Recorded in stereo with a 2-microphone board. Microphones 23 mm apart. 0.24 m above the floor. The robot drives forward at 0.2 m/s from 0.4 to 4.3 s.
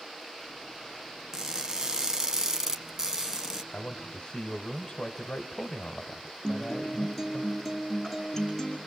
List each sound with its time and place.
1.3 s crushing: 25° right (ahead or behind), 1.5 m; by 3.6 s 20° right (ahead or behind), 1.9 m
3.7 s a man speaking: 35° left (ahead or behind), 1.2 m
6.4 s a guitar: 15° left (ahead or behind), 4.5 m